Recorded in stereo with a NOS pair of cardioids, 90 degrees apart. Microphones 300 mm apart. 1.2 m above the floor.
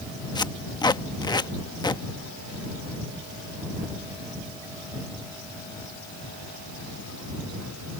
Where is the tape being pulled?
15° left.